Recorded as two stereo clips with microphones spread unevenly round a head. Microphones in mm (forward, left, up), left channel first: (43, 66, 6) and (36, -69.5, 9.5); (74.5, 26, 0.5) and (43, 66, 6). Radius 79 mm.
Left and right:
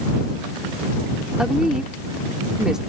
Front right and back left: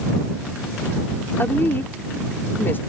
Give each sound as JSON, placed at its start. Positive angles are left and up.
{"t": 1.4, "sound": "a woman speaking", "azimuth_deg": -10}